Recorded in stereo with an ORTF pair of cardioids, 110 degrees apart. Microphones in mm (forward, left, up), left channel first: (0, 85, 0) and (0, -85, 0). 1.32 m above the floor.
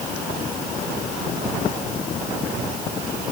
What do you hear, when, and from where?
Only background noise.